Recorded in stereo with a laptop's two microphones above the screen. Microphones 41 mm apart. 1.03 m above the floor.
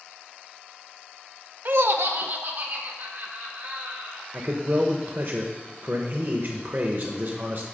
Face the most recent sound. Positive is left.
turn(degrees=-50)  # may be behind; listen again after turning